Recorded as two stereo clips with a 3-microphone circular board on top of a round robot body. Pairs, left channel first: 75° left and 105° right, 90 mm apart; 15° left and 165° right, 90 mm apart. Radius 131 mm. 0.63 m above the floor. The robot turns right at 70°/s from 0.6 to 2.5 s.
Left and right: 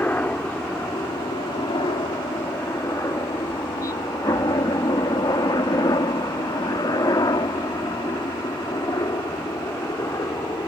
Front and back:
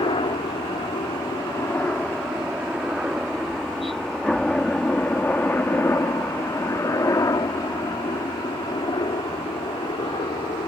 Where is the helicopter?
5° left; by 10.7 s 25° left.